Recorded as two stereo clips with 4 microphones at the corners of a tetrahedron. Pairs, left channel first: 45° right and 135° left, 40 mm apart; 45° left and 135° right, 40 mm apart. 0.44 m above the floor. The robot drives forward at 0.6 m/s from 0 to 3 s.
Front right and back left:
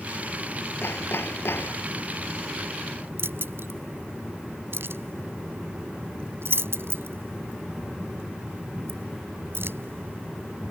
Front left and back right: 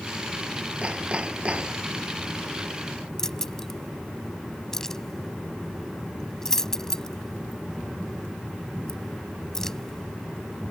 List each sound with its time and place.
0.8 s hammering: 70° right; by 1.9 s 75° right
3.2 s keys jangling: 125° left